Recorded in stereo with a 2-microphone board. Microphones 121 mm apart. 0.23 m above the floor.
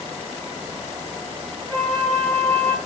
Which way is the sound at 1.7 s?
15° left (ahead or behind).